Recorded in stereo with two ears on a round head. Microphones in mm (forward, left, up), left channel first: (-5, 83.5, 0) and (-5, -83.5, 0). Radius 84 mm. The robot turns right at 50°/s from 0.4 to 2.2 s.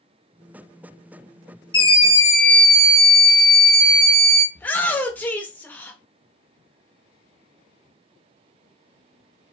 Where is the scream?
25° left (ahead or behind), 1.2 m; by 4.5 s 20° left (ahead or behind), 1.2 m.